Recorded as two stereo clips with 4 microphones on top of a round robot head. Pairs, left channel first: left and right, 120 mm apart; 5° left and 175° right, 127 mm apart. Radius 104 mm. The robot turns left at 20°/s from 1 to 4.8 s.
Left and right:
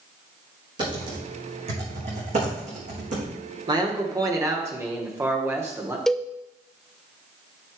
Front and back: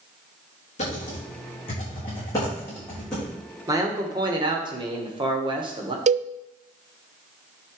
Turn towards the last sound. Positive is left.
turn(degrees=175)